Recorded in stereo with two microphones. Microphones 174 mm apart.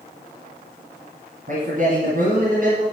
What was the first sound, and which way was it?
A man speaking, 50° right (ahead or behind).